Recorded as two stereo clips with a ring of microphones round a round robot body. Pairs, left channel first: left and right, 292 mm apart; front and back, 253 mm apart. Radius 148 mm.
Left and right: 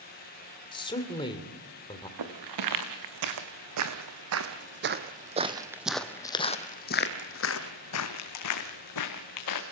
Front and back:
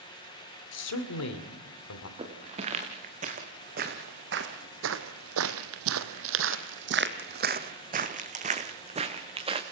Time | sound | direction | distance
0.7 | a man speaking | 15° left | 2.5 m
2.2 | footsteps | 110° right | 3 m